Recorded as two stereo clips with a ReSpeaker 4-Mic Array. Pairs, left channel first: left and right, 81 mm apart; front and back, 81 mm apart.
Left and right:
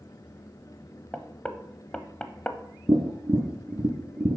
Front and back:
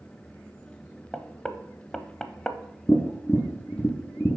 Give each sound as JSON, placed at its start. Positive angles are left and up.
{"t": 1.1, "sound": "knocking", "azimuth_deg": 60, "distance_m": 0.6}
{"t": 2.9, "sound": "tapping", "azimuth_deg": -65, "distance_m": 1.0}